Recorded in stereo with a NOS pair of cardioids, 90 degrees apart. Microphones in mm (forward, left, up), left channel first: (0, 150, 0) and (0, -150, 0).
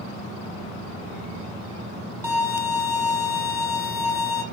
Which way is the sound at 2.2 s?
10° right.